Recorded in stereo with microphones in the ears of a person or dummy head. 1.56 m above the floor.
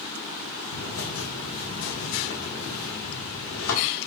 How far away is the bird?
About 5.5 m.